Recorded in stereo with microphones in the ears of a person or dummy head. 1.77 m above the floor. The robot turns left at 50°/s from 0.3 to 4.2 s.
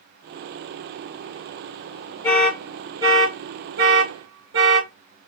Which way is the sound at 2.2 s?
10° left (ahead or behind).